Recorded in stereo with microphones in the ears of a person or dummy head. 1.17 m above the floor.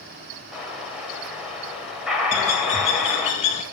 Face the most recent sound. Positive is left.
turn(degrees=35)  # may be behind; listen again after turning